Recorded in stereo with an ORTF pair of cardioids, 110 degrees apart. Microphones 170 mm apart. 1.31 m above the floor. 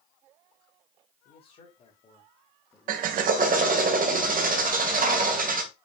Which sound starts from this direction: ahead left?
A man speaking, at 1.2 s.